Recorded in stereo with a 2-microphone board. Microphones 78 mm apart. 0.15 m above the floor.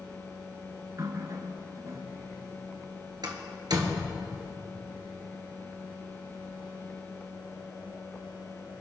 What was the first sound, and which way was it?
A running tap, 50° right (ahead or behind).